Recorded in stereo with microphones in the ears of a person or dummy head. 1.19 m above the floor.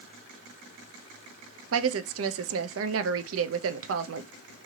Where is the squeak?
I don't hear a squeak.